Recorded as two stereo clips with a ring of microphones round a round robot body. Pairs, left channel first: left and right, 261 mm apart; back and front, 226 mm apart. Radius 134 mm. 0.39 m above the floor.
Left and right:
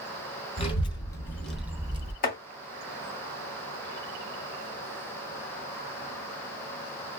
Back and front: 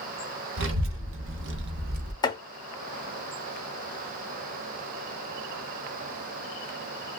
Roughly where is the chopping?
Behind left.